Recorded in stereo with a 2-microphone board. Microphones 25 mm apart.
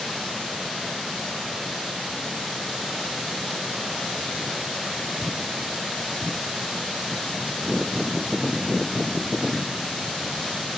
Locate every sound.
Only background noise.